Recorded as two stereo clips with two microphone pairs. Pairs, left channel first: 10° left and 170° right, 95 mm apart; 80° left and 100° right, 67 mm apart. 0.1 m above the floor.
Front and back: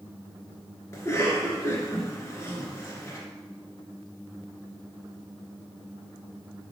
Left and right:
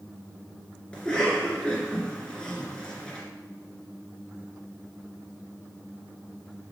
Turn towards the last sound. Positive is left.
turn(degrees=10)